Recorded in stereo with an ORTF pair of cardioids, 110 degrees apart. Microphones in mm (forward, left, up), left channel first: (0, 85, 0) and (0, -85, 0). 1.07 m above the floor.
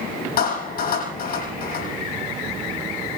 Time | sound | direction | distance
0.4 | a clap | 60° left | 7 m